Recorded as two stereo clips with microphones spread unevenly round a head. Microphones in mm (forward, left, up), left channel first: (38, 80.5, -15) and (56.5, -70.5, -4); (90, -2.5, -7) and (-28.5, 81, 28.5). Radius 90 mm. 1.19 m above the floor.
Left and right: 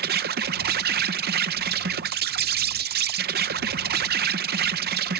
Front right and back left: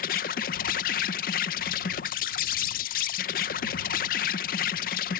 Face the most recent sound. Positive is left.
turn(degrees=-70)